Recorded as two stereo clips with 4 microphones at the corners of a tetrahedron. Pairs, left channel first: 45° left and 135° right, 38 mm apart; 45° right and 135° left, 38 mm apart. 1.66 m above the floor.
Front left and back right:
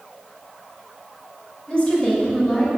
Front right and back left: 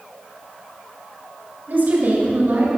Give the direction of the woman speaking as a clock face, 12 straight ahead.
9 o'clock.